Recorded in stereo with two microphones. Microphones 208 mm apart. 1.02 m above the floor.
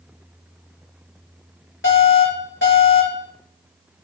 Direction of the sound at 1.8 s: 70° left (ahead or behind).